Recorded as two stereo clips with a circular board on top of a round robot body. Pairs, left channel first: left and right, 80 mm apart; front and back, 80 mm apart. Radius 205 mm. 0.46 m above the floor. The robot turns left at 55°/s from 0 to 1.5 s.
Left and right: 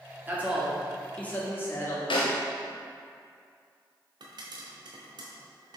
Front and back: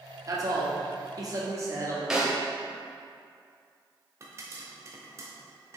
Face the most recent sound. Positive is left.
turn(degrees=-120)